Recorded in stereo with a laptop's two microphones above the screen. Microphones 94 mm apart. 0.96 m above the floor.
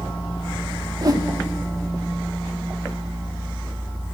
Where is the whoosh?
40° right (ahead or behind), 0.8 m.